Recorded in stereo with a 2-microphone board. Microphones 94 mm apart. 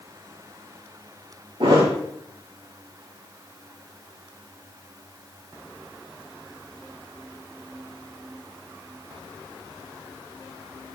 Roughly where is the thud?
Right.